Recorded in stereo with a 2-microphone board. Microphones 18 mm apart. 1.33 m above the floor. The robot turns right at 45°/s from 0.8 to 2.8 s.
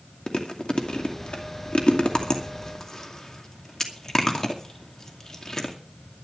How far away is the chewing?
About 2.5 m.